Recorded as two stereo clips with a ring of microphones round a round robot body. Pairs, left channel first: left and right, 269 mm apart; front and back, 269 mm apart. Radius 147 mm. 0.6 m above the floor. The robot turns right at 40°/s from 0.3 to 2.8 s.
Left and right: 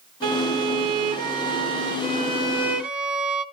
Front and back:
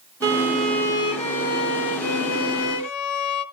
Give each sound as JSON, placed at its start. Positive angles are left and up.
{"t": 0.2, "sound": "a violin", "azimuth_deg": -105, "distance_m": 1.2}